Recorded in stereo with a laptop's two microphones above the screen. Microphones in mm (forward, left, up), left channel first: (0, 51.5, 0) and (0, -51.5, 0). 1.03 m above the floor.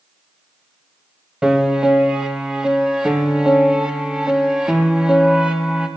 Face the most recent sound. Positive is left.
turn(degrees=-5)  # may be behind; listen again after turning